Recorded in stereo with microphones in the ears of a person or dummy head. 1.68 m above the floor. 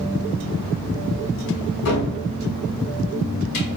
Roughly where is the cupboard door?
Left.